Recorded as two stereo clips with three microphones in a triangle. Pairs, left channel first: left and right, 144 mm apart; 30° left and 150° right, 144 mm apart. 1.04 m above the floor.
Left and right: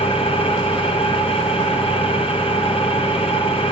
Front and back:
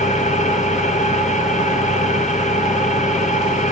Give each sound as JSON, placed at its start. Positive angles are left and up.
{"t": 0.0, "sound": "an engine running", "azimuth_deg": 50, "distance_m": 0.9}